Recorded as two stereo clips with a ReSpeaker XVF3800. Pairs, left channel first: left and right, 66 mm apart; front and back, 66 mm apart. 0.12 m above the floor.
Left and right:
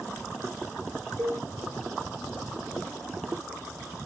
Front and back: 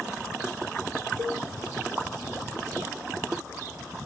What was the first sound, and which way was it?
A cowbell, 60° left.